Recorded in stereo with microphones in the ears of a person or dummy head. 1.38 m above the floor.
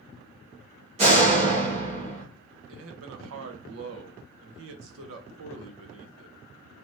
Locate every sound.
1.0 s a door slam: 35° right (ahead or behind), 1.2 m
2.7 s a man speaking: 80° right, 0.7 m